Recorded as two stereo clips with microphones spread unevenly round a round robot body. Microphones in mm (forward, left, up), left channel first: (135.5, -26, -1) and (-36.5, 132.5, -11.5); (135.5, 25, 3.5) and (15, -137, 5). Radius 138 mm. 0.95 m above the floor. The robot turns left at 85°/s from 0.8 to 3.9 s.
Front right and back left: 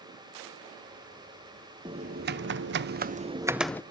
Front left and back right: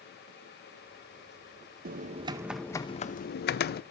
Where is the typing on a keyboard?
155° right, 0.5 m; by 3.8 s 35° left, 0.5 m.